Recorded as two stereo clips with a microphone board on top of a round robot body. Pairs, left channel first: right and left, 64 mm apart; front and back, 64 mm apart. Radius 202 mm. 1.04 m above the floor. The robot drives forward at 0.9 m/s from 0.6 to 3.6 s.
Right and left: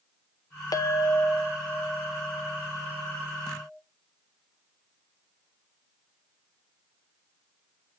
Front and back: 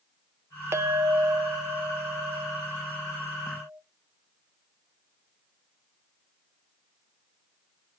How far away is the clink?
About 0.6 m.